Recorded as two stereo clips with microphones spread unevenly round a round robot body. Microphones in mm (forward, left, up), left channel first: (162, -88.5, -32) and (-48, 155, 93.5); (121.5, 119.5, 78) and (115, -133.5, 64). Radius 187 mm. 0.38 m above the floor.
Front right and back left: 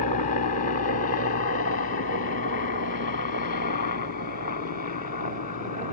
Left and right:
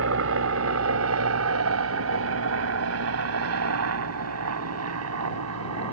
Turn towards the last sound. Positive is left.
turn(degrees=-100)